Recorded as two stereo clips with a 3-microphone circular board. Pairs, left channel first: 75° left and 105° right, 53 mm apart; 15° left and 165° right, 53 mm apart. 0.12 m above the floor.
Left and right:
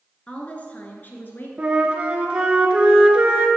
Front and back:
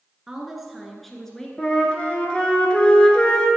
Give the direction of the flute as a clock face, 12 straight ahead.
2 o'clock.